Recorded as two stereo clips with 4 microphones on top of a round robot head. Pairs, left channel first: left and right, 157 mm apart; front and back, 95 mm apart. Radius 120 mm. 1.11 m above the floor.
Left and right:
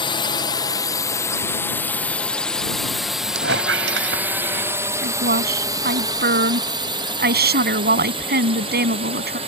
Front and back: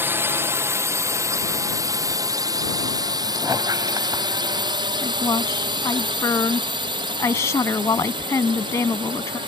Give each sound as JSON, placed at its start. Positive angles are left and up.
{"t": 0.0, "sound": "a drone", "azimuth_deg": 130}
{"t": 3.4, "sound": "a squeak", "azimuth_deg": -105}
{"t": 5.0, "sound": "a woman speaking", "azimuth_deg": -70}